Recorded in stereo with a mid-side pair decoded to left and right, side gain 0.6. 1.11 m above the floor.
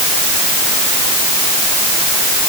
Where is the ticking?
No ticking in this recording.